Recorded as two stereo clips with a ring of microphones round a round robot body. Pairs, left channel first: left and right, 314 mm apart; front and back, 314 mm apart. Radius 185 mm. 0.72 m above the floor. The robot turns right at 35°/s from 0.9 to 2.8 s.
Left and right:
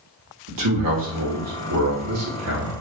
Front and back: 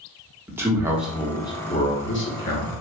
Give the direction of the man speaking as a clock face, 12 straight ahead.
3 o'clock.